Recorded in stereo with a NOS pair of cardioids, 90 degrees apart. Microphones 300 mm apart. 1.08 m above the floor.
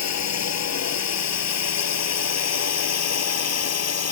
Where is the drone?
55° left; by 4.1 s 50° left.